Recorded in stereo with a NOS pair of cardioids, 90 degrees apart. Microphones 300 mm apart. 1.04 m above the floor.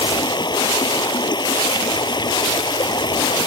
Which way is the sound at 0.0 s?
15° left.